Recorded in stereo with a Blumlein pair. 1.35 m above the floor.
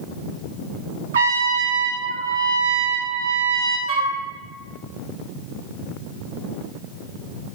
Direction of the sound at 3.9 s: 35° right.